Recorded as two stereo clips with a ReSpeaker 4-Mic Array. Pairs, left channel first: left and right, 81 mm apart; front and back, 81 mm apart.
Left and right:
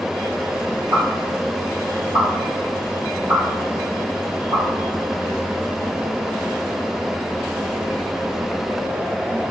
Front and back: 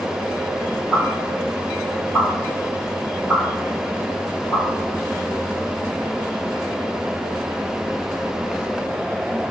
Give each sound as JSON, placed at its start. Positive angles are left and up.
{"t": 0.9, "sound": "a pop", "azimuth_deg": -130, "distance_m": 1.5}